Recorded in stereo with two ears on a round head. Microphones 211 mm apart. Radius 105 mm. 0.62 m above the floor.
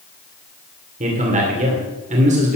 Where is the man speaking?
30° right (ahead or behind), 2.5 m.